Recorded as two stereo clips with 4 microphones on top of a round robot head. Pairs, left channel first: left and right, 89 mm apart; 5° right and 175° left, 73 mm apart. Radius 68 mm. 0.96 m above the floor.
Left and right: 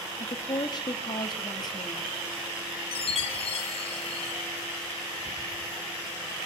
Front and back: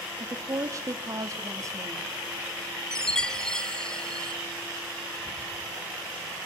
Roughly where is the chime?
Left.